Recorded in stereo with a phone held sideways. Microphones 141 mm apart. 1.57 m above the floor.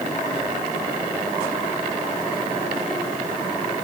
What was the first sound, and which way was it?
Only background noise.